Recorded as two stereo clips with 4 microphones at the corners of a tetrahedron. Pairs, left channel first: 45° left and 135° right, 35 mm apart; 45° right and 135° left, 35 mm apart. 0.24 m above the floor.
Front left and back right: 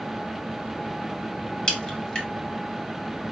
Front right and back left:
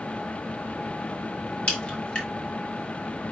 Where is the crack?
15° right, 2.0 m.